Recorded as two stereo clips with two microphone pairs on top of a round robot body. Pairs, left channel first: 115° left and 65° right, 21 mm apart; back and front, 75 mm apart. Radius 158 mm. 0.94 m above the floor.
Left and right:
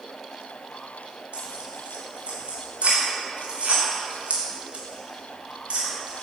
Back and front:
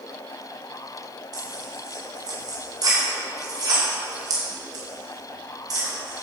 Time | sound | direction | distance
1.3 | tearing paper | 35° right | 3 m